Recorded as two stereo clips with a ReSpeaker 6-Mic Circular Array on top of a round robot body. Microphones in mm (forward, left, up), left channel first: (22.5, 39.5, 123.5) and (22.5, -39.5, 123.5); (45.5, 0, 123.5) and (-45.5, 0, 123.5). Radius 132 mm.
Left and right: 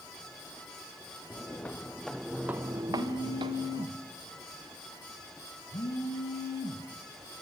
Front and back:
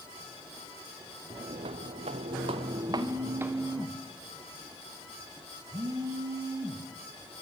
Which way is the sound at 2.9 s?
130° left.